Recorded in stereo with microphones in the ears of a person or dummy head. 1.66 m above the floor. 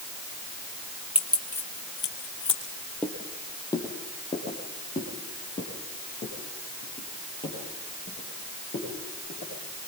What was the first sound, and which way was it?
Keys jangling, 5° right (ahead or behind).